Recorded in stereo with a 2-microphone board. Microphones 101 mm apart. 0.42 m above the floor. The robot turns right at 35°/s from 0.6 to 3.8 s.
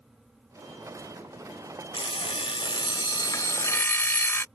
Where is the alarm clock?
90° left; by 4.5 s 155° left.